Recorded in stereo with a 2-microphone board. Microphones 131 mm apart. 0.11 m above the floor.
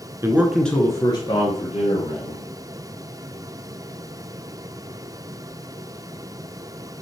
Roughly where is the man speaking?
Right.